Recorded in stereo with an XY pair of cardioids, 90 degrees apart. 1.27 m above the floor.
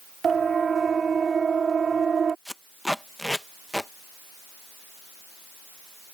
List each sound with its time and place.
0.2 s a siren: 45° right
2.5 s tape being pulled: 5° left